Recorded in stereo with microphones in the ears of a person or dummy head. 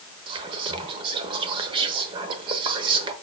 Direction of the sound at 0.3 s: 25° right (ahead or behind).